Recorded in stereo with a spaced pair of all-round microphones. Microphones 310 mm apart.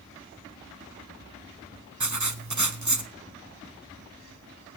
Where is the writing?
65° right (ahead or behind), 1.2 m.